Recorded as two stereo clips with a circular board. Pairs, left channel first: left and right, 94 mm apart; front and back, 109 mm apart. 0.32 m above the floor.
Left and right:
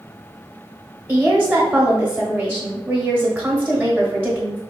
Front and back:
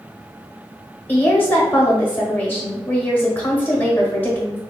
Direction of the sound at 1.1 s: 45° right.